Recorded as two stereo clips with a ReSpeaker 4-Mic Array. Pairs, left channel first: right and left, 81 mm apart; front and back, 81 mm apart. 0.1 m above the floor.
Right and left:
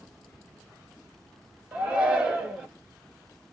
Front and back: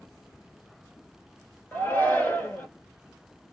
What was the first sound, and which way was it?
A shout, 30° left.